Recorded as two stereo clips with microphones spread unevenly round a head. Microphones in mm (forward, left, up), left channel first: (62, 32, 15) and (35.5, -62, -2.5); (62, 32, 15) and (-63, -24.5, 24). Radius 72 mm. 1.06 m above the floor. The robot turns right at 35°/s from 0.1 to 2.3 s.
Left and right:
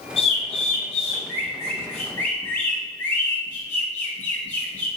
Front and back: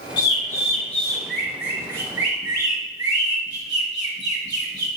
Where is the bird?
70° left, 1.3 m; by 4.9 s 145° left, 1.3 m.